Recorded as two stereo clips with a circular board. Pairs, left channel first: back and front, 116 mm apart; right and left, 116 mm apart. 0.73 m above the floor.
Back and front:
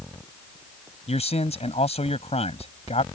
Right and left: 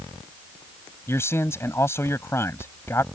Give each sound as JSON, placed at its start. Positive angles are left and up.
{"t": 1.1, "sound": "a man speaking", "azimuth_deg": -155}